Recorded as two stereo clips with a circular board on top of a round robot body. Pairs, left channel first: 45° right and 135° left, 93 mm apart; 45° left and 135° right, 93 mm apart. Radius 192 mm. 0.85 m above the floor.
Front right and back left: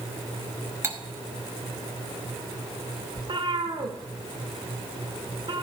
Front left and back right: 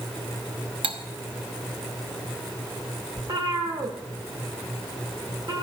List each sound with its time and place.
0.8 s cutlery clinking: 160° right, 1.2 m
3.2 s a cat meowing: 175° left, 1.2 m